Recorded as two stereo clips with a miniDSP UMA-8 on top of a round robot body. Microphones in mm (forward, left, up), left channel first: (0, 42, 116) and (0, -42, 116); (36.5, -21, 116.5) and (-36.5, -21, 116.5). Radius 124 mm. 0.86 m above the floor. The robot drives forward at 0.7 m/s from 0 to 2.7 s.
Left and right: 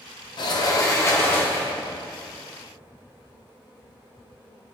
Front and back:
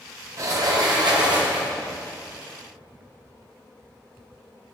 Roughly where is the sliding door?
Behind left.